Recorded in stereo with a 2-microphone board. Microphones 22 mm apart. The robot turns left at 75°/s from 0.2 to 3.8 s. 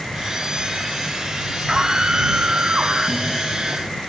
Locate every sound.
1.7 s a scream: 15° right; by 3.4 s 145° right